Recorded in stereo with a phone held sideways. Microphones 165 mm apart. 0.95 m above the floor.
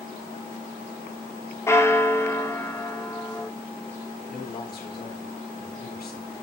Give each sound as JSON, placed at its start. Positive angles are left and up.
{"t": 1.7, "sound": "a bell", "side_deg": 15, "distance_m": 1.1}
{"t": 4.3, "sound": "a man speaking", "side_deg": 70, "distance_m": 4.0}